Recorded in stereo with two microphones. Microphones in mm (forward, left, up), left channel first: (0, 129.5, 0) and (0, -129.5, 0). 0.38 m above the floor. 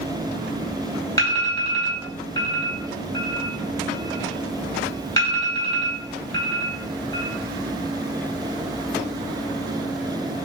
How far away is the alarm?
About 5.5 m.